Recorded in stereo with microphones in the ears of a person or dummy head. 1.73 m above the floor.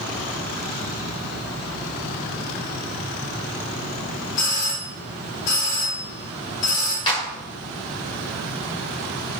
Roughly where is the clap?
Left.